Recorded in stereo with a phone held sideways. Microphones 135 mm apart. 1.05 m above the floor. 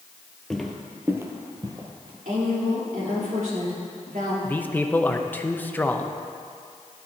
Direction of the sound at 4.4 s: 15° left (ahead or behind).